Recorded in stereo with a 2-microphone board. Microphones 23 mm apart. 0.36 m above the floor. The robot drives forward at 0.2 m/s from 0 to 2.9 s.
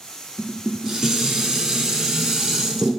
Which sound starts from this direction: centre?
Dishes clattering, at 0.4 s.